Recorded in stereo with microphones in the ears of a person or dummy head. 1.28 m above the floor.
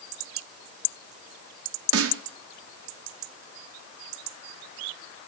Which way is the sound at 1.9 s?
75° right (ahead or behind).